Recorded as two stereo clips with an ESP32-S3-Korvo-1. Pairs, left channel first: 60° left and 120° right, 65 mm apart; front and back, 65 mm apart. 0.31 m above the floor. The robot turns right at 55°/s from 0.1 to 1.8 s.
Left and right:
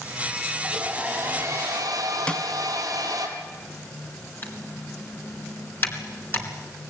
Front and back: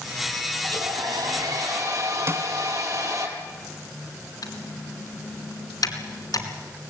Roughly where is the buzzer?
No buzzer in this recording.